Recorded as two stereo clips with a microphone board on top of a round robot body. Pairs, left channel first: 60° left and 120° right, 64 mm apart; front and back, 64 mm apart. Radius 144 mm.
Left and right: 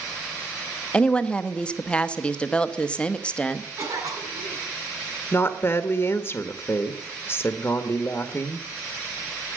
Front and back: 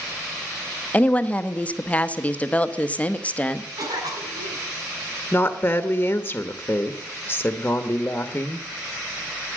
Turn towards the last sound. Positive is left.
turn(degrees=35)